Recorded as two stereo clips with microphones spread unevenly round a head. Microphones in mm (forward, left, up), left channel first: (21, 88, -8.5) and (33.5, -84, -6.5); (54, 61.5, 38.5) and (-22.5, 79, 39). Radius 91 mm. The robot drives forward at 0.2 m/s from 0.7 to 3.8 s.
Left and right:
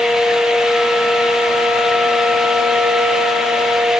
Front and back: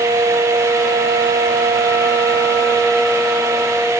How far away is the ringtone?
No ringtone in this recording.